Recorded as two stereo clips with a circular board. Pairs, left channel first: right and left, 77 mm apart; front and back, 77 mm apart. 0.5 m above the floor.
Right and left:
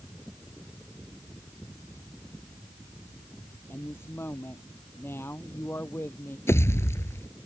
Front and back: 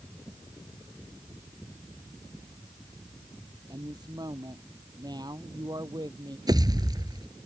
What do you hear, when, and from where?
3.7 s a woman speaking: 150° right
6.5 s a pop: 145° right